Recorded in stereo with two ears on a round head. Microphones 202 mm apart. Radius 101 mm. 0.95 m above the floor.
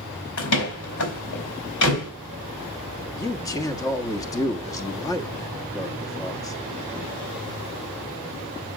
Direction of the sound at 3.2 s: 15° left (ahead or behind).